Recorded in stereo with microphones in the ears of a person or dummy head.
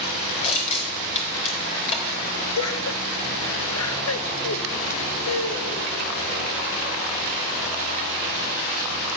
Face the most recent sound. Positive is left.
turn(degrees=85)